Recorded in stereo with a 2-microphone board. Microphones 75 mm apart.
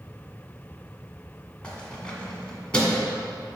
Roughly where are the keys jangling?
Centre.